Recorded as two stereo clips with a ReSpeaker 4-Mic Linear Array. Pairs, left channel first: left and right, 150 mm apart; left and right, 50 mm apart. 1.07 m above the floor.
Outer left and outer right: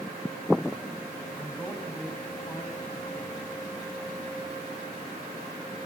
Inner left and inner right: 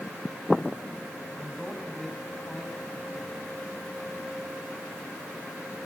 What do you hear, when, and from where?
1.4 s a man speaking: 10° left (ahead or behind), 8.5 m